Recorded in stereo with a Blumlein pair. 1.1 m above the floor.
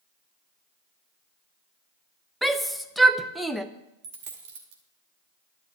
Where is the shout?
Straight ahead, 0.6 m.